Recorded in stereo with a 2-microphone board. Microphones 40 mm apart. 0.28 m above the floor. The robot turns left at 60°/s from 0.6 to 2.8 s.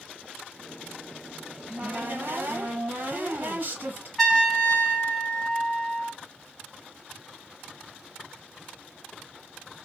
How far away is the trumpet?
About 1.8 m.